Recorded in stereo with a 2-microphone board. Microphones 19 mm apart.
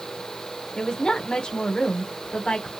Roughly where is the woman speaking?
Left.